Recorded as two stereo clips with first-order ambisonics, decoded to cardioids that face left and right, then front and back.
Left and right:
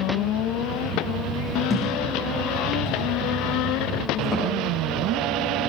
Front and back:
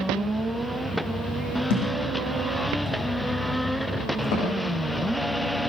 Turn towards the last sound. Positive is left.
turn(degrees=0)